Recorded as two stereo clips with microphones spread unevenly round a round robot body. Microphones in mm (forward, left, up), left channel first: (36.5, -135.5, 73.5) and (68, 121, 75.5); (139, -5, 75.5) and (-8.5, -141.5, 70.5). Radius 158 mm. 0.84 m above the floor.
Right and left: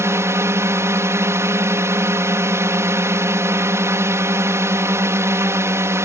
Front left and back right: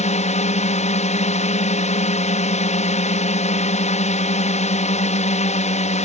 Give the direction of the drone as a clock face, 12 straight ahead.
12 o'clock.